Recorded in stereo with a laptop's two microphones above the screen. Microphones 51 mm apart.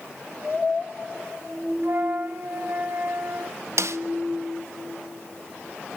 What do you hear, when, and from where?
1.8 s a flute: 50° right (ahead or behind), 2.5 m
3.8 s a snare drum: 65° right (ahead or behind), 0.7 m